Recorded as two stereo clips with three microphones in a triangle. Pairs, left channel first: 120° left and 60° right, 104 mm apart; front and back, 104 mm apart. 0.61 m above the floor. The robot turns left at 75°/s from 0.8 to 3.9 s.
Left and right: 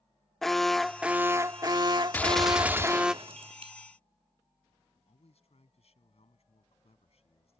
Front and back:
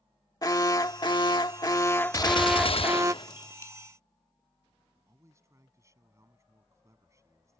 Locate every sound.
0.4 s an alarm: 35° left; by 3.1 s 140° right
2.1 s a gunshot: 50° left; by 3.7 s 65° right
5.1 s a man speaking: 120° left